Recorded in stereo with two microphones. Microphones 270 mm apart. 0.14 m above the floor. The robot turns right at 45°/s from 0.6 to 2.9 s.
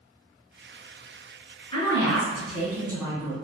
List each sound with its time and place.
1.7 s a woman speaking: 150° left, 1.4 m; by 3.3 s 160° right, 1.4 m